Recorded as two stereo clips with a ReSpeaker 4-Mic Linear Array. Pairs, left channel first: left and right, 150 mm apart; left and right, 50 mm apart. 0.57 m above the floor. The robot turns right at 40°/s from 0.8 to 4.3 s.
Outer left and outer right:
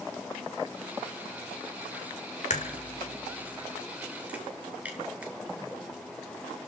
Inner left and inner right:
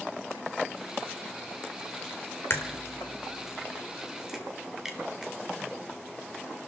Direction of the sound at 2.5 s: 50° left (ahead or behind).